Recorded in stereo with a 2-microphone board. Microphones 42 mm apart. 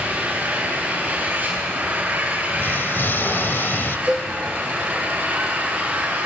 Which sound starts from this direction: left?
An explosion, at 2.6 s.